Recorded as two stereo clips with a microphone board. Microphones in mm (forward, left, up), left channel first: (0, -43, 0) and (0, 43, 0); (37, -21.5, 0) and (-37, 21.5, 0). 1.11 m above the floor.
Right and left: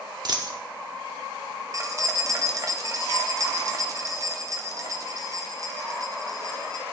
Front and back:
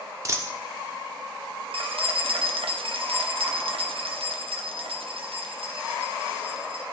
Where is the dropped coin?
105° left, 0.9 m.